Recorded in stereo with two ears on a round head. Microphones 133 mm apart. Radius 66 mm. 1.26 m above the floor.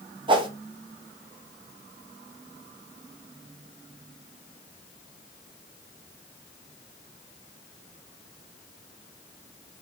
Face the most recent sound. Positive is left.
turn(degrees=-35)  # may be behind; listen again after turning